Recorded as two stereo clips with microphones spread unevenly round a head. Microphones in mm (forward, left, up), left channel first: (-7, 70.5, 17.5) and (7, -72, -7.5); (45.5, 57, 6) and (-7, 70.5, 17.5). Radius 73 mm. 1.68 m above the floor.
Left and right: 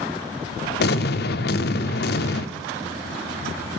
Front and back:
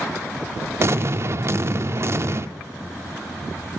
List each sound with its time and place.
0.8 s an explosion: 120° left, 0.6 m